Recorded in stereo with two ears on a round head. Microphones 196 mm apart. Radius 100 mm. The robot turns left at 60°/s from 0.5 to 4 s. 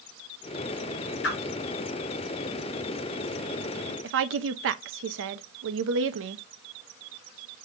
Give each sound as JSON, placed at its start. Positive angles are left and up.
{"t": 1.2, "sound": "a whoosh", "side_deg": 55, "distance_m": 2.5}
{"t": 4.0, "sound": "a woman speaking", "side_deg": -60, "distance_m": 0.6}